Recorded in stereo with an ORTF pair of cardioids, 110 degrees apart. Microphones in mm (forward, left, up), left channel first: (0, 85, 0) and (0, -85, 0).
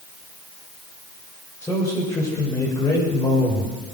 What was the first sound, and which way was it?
A man speaking, 15° left.